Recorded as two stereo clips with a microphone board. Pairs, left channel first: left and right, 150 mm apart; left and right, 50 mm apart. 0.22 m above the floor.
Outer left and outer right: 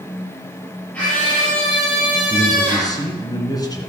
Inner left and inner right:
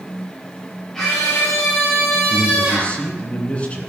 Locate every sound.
0.9 s a scream: 10° left (ahead or behind), 5 m
2.3 s a man speaking: 25° left (ahead or behind), 2 m